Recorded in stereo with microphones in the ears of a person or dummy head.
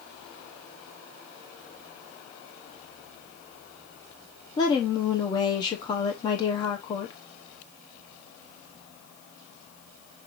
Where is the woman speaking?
25° left (ahead or behind), 0.9 m.